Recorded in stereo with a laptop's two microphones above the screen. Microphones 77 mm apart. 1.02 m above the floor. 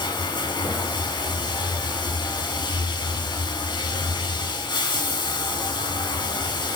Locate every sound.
0.0 s running water: 85° left, 3 m